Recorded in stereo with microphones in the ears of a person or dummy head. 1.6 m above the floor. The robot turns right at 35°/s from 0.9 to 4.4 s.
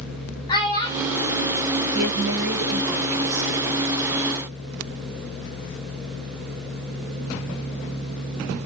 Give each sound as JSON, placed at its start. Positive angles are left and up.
{"t": 0.5, "sound": "a child speaking", "side_deg": 20, "distance_m": 1.4}
{"t": 1.9, "sound": "a woman speaking", "azimuth_deg": -115, "distance_m": 0.8}